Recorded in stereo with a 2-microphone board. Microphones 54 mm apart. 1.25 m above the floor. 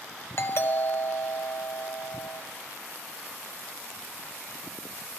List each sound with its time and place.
0.4 s a doorbell: 50° left (ahead or behind), 0.8 m